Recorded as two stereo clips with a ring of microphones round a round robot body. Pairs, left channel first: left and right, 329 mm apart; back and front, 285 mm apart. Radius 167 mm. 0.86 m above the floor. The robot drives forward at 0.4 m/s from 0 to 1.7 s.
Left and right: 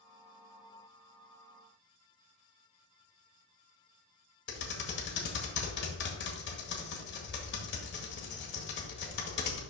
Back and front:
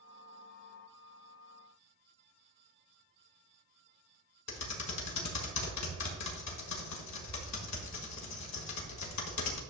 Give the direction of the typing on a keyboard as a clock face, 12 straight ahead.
7 o'clock.